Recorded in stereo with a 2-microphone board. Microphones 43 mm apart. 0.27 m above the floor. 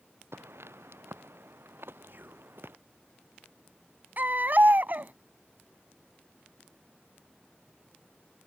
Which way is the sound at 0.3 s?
80° right.